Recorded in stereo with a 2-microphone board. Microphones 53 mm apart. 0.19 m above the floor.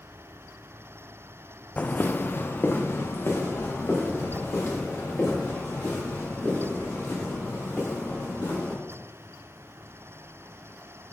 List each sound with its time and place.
1.8 s footsteps: 30° left (ahead or behind), 0.5 m; by 8.7 s 50° left (ahead or behind), 8 m